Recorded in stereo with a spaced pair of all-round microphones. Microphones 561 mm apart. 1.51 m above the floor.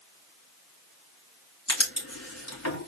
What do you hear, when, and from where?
1.7 s writing: 25° left (ahead or behind), 3 m